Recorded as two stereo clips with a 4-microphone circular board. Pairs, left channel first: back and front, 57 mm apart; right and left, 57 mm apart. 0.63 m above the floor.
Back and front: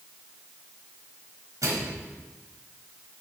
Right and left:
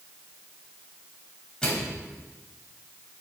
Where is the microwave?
15° right, 3.5 m.